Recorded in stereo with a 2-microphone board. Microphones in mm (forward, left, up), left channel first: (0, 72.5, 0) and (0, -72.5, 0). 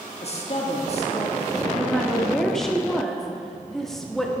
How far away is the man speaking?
About 1.4 m.